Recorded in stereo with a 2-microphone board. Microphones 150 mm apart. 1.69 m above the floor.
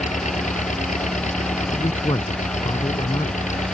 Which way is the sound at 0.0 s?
50° left (ahead or behind).